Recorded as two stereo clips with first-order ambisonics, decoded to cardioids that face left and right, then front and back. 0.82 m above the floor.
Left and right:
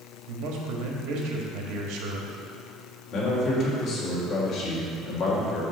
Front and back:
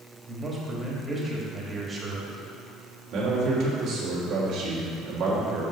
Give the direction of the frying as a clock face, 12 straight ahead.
I don't hear frying.